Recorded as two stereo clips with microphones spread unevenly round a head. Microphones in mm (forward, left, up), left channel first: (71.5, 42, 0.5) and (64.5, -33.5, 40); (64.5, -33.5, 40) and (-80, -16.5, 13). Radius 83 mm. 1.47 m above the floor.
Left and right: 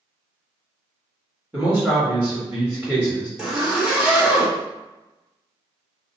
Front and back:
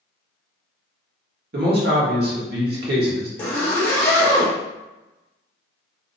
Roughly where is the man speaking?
Behind.